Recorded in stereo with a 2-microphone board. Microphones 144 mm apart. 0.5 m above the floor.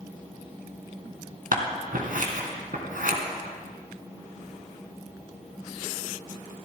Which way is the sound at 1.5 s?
70° right (ahead or behind).